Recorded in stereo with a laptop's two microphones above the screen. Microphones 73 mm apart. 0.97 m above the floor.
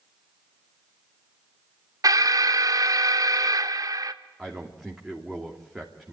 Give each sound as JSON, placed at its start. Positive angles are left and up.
{"t": 2.0, "sound": "an alarm", "side_deg": -50, "distance_m": 0.9}
{"t": 4.4, "sound": "a man speaking", "side_deg": -5, "distance_m": 3.0}